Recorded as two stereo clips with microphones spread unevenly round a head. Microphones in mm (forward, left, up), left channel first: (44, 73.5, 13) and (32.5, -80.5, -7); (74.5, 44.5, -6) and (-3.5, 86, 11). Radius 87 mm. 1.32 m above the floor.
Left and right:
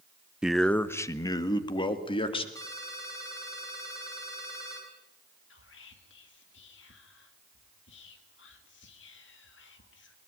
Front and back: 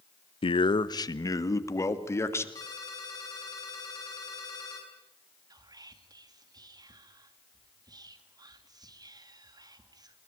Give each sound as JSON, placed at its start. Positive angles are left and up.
{"t": 0.4, "sound": "a man speaking", "azimuth_deg": -10, "distance_m": 0.9}
{"t": 2.5, "sound": "a ringtone", "azimuth_deg": 20, "distance_m": 7.5}
{"t": 5.5, "sound": "whispering", "azimuth_deg": 110, "distance_m": 2.5}